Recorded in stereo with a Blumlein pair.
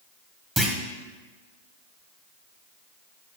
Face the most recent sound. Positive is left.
turn(degrees=-10)